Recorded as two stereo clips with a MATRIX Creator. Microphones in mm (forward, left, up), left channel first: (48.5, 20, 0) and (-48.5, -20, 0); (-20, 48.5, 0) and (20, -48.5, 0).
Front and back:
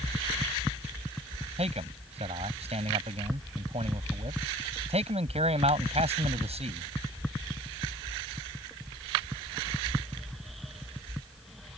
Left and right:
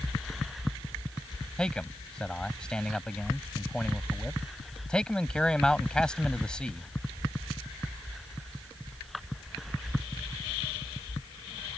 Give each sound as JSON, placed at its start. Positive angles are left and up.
{"t": 1.6, "sound": "a man speaking", "azimuth_deg": -165}